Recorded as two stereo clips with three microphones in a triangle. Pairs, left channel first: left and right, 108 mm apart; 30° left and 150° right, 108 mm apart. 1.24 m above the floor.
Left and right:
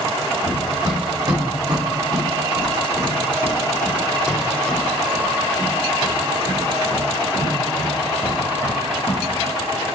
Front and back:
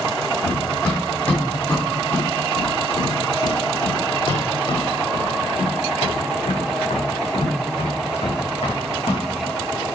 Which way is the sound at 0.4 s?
55° right.